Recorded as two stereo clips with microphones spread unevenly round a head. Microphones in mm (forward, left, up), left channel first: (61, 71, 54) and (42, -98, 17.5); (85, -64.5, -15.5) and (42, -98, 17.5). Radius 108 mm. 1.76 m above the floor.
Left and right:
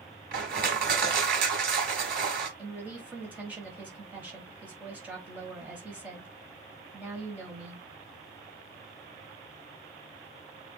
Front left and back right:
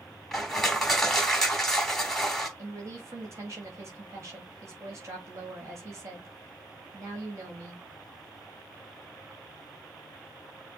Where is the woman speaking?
Straight behind, 1.4 m.